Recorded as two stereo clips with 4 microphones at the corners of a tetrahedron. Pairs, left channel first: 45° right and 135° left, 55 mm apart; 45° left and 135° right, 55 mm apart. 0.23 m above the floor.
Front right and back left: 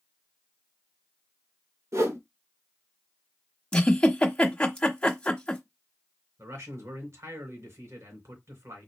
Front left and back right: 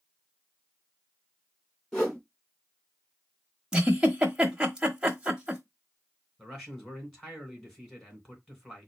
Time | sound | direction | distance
1.9 | a whoosh | 125° left | 2 m
3.7 | a giggle | 85° right | 1.2 m
6.4 | a man speaking | 130° left | 3 m